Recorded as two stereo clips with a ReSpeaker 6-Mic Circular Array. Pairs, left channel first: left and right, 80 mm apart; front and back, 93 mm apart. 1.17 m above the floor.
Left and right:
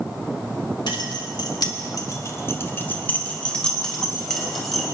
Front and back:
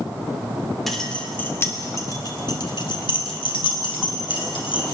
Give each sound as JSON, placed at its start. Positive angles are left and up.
{"t": 0.9, "sound": "keys jangling", "azimuth_deg": 90, "distance_m": 2.5}